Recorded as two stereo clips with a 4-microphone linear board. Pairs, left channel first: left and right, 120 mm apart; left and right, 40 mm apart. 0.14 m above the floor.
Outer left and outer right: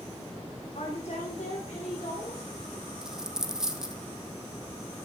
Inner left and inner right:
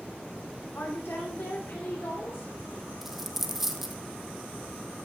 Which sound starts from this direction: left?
A woman speaking, at 0.8 s.